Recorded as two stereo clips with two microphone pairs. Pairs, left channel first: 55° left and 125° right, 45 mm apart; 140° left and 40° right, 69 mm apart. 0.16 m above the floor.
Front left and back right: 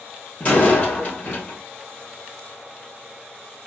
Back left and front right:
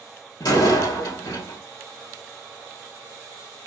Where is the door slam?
115° left, 3 m.